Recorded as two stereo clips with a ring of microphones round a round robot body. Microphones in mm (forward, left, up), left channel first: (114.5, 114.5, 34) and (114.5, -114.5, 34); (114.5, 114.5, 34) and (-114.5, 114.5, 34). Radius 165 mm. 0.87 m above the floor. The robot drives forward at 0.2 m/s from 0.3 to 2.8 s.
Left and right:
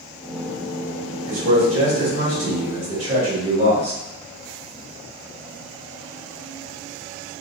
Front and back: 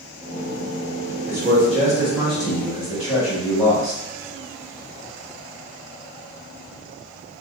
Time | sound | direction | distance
1.3 | a man speaking | 80° right | 1.7 m